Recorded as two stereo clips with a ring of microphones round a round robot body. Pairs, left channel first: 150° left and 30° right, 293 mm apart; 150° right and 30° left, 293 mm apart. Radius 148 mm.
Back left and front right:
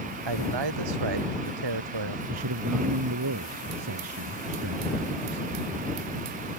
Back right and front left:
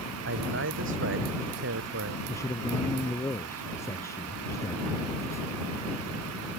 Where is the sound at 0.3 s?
20° right.